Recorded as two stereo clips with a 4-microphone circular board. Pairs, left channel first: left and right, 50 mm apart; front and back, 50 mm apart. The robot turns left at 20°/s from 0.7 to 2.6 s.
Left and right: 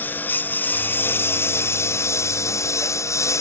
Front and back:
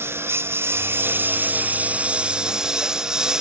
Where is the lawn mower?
140° left; by 3.4 s 105° left.